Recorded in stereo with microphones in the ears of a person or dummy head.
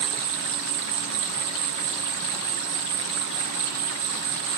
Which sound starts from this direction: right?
An insect, at 0.0 s.